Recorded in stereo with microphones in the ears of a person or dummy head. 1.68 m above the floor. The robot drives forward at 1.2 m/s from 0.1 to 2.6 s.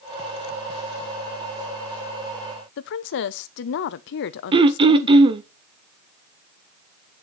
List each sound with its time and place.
2.8 s a woman speaking: 60° left (ahead or behind), 0.8 m
4.5 s throat clearing: 30° right (ahead or behind), 0.5 m